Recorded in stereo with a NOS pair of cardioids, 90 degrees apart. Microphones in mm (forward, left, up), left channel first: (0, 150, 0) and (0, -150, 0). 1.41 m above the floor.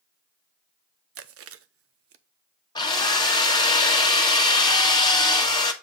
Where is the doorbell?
I don't hear a doorbell.